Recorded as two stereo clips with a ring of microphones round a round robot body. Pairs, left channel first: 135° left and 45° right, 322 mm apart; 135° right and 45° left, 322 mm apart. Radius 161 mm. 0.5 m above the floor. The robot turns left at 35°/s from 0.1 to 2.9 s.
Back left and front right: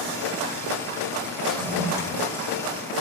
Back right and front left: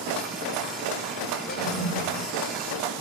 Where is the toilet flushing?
135° right, 1.4 m; by 2.3 s 160° right, 1.4 m.